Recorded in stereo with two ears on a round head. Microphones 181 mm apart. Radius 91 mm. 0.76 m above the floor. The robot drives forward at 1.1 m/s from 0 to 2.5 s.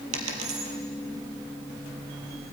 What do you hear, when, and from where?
0.1 s a dropped coin: 80° right, 3 m